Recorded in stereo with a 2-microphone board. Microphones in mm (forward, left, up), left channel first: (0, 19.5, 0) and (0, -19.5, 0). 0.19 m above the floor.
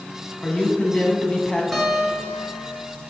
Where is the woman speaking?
25° left (ahead or behind), 1.4 m.